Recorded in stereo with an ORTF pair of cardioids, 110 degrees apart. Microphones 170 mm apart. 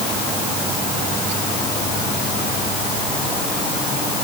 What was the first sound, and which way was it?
Only background noise.